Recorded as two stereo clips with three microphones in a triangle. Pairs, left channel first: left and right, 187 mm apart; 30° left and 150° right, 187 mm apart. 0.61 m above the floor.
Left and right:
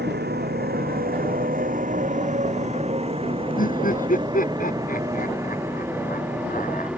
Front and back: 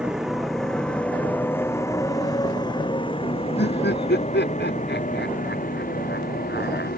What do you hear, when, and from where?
0.0 s a motorcycle: 65° right; by 7.0 s 5° right
3.6 s laughter: 50° left